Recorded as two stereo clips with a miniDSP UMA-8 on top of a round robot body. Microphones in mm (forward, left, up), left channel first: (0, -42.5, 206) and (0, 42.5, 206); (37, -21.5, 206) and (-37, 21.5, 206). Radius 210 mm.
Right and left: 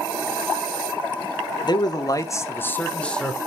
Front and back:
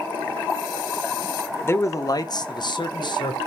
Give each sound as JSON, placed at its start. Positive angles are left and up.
{"t": 1.6, "sound": "a man speaking", "azimuth_deg": -85, "distance_m": 1.8}